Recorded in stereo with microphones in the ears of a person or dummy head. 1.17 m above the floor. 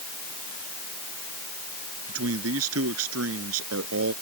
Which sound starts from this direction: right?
A man speaking, at 2.1 s.